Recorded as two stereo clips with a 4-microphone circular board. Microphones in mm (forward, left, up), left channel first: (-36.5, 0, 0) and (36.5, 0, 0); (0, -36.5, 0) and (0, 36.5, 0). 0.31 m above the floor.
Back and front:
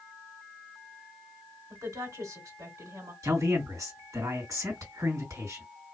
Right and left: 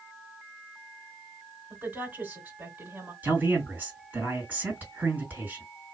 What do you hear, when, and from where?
1.7 s a woman speaking: 25° left, 2 m
3.2 s a man speaking: 30° left, 2.5 m